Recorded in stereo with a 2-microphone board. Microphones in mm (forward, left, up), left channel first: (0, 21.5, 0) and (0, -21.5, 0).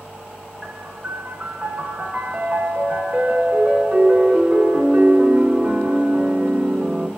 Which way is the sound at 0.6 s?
25° right (ahead or behind).